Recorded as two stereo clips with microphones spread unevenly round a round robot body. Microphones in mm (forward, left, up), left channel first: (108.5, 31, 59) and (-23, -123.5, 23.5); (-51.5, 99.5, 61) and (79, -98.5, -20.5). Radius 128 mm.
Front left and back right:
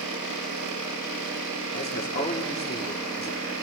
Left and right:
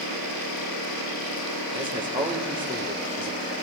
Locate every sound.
1.7 s a man speaking: 5° left, 1.9 m